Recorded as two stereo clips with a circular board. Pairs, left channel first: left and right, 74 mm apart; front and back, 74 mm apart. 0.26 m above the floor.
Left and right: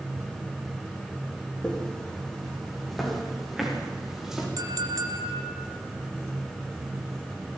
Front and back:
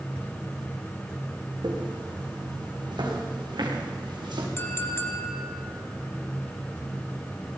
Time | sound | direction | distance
1.6 | footsteps | 170° left | 5.5 m
4.6 | a clink | 55° right | 3 m